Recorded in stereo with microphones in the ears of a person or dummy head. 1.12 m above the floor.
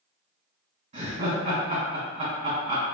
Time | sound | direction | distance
0.9 | laughter | 40° right (ahead or behind) | 1.3 m